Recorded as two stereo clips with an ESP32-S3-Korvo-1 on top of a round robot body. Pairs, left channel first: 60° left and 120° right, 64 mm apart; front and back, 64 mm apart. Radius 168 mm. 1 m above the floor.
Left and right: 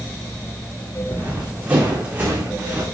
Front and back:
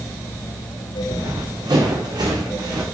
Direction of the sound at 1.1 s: 170° left.